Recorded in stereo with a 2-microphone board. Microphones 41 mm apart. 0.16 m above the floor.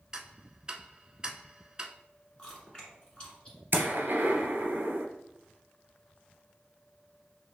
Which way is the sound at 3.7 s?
60° right (ahead or behind).